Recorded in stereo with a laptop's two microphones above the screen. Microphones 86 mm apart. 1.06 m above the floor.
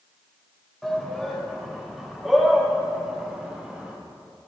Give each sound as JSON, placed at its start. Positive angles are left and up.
{"t": 0.8, "sound": "a shout", "side_deg": 5, "distance_m": 3.5}